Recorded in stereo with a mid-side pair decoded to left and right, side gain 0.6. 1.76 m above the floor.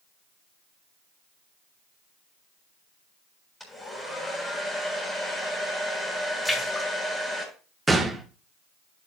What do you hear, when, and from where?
3.6 s a hair dryer: 10° left, 7.5 m
6.5 s a splash: 10° left, 4 m
7.9 s a gunshot: 10° right, 1.7 m